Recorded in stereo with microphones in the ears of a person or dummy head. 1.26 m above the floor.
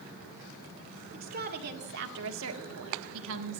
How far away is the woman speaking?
About 2.0 m.